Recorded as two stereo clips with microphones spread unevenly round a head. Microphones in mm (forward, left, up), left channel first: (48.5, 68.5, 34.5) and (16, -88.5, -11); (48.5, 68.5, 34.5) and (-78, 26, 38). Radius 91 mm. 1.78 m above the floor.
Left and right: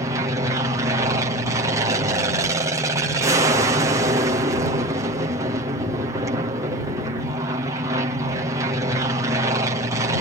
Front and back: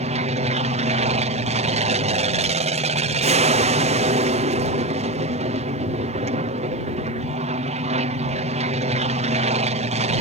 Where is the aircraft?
155° right.